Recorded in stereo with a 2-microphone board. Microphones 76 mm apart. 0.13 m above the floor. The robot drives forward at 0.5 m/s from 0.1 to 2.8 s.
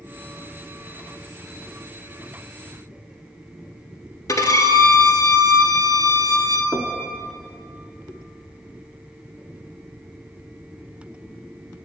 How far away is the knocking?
About 0.7 m.